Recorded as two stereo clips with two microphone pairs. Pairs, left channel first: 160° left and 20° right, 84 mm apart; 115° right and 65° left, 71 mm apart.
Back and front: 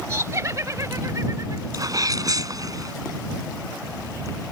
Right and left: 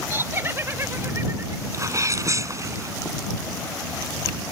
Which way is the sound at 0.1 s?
25° left.